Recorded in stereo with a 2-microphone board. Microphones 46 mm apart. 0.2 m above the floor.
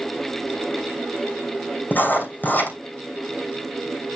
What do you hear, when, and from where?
1.9 s writing: 45° left (ahead or behind), 3 m